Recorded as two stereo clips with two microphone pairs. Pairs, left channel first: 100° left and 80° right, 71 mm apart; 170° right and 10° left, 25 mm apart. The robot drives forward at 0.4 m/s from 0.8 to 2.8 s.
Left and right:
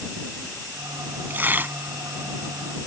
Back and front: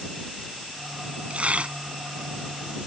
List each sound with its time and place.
1.3 s tearing paper: 20° right